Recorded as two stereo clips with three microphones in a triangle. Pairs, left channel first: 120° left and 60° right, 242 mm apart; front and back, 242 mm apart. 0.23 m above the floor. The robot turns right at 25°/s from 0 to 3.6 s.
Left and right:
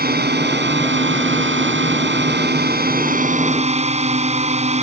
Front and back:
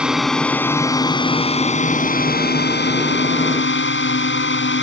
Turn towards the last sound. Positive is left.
turn(degrees=-5)